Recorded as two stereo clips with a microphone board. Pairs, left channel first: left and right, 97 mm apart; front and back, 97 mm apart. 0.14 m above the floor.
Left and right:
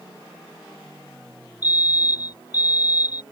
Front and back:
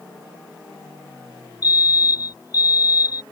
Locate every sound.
1.6 s a fire alarm: 45° left